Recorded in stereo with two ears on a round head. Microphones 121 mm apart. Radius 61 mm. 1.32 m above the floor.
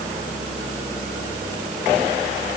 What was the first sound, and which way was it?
Only background noise.